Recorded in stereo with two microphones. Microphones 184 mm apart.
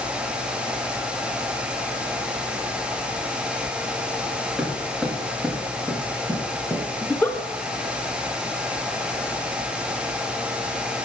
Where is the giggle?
10° left (ahead or behind), 0.9 m.